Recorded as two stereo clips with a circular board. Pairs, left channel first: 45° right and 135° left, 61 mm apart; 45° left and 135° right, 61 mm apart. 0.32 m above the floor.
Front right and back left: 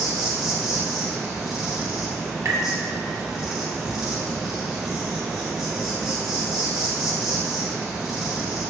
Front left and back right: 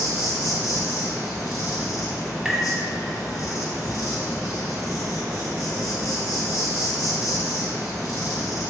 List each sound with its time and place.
0.0 s an insect: 50° left, 1.1 m
2.5 s tapping: 145° left, 0.6 m